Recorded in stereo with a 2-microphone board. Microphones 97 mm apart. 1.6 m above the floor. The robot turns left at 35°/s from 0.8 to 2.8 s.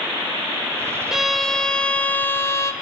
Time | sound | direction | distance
1.1 | a violin | 175° right | 1.8 m